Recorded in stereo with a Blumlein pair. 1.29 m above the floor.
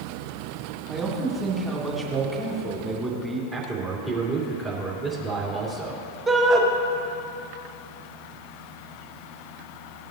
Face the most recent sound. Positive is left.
turn(degrees=-15)